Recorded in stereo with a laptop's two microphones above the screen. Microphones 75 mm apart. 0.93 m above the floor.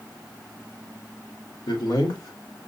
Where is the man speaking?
70° left (ahead or behind), 2.5 m; by 2.7 s 55° left (ahead or behind), 2 m.